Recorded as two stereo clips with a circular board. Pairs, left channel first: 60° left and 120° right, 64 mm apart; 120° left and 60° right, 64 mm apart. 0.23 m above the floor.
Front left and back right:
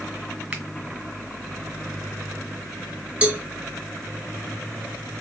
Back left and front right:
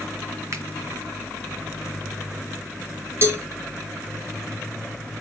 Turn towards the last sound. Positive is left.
turn(degrees=-60)